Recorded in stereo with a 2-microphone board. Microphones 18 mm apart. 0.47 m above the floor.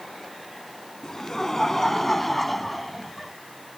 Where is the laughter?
25° left (ahead or behind); by 3.3 s 10° right (ahead or behind).